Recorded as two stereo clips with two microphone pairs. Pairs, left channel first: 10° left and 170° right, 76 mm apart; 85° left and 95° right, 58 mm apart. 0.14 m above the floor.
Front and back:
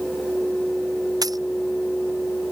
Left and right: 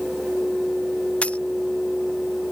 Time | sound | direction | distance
1.2 | a dropped coin | 155° left | ?